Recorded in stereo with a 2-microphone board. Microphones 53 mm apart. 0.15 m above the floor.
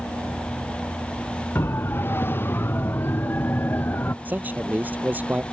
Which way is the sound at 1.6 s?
45° left (ahead or behind).